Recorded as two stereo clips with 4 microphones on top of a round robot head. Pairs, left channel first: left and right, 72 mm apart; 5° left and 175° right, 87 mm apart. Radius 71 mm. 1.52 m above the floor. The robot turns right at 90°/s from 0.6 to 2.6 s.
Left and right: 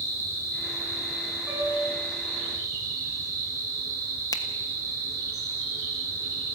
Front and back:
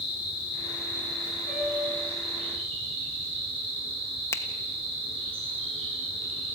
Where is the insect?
35° left, 9.5 m; by 6.6 s 145° right, 9.5 m.